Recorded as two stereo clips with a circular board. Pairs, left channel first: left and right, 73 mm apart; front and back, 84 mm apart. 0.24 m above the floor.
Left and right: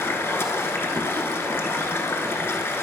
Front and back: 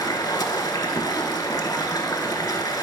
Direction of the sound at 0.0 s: 35° left.